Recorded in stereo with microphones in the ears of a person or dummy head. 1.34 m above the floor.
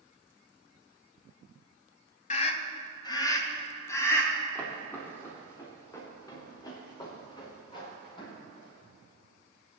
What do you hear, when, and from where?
2.3 s a scream: 45° left (ahead or behind), 1.4 m; by 4.3 s 20° left (ahead or behind), 4 m
4.5 s footsteps: 10° left (ahead or behind), 4 m; by 9.0 s 35° left (ahead or behind), 6 m